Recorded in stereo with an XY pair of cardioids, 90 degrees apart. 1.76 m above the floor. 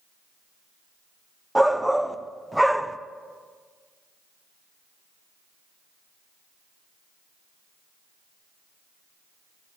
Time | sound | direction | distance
1.6 | a shout | 5° right | 0.9 m